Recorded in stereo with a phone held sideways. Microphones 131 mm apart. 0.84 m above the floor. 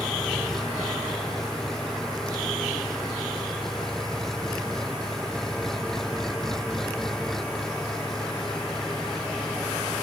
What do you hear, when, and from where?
0.0 s an engine running: 5° left (ahead or behind)